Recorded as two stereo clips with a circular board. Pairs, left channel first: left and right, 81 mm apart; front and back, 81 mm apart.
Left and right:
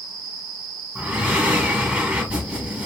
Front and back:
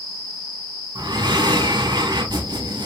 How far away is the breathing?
About 0.7 m.